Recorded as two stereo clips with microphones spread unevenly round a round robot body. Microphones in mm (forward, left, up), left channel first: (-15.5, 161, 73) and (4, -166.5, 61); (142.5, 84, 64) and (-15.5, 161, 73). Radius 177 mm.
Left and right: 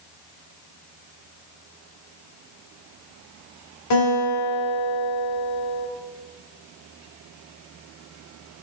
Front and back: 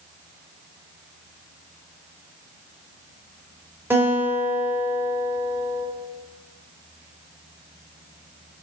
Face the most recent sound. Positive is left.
turn(degrees=75)